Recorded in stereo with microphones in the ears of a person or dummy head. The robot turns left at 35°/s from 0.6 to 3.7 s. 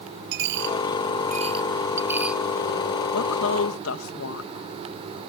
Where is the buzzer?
No buzzer in this recording.